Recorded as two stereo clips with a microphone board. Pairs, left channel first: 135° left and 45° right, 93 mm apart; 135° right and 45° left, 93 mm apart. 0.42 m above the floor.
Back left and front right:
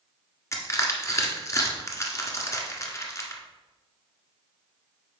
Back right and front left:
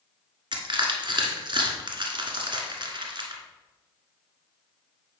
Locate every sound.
0.5 s crushing: 80° left, 1.4 m